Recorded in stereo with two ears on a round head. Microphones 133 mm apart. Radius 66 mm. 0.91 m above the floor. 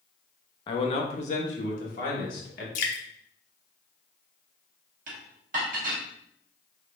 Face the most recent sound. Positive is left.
turn(degrees=-65)  # may be behind; listen again after turning